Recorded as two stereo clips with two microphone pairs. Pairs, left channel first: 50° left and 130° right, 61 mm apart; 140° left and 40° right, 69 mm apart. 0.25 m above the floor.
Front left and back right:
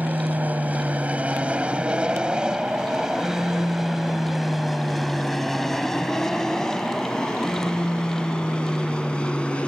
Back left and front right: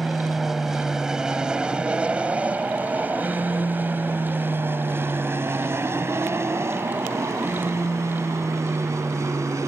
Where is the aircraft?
130° right; by 9.7 s 15° right.